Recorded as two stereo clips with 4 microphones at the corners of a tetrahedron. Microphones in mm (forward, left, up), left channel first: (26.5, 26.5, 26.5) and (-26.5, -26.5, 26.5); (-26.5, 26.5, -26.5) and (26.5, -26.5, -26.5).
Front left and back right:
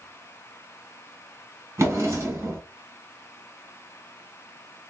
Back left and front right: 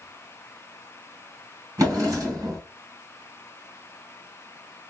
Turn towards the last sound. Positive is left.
turn(degrees=-85)